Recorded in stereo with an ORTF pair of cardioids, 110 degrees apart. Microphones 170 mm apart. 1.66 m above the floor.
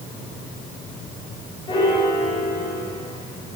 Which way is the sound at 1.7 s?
35° left.